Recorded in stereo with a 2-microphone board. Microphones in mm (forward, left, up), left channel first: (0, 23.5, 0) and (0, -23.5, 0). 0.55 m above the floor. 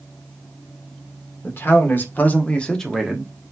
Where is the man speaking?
50° left (ahead or behind), 1.6 m; by 3.3 s 15° right (ahead or behind), 0.9 m.